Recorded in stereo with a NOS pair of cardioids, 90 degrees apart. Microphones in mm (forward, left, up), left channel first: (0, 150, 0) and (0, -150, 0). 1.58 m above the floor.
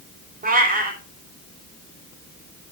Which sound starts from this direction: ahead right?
A cat meowing, at 0.4 s.